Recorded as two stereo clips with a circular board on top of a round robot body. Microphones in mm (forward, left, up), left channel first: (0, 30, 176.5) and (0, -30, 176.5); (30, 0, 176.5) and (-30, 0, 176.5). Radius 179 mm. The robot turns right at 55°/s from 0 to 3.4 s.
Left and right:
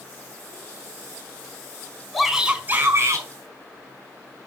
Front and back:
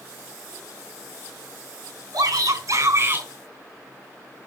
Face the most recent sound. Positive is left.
turn(degrees=-110)